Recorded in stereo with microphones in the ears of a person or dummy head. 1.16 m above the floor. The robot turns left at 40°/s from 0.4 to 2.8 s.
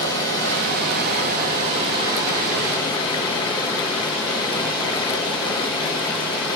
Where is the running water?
95° right, 2 m; by 6.5 s 170° left, 2 m.